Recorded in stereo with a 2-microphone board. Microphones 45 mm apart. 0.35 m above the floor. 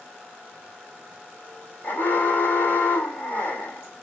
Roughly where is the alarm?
Left.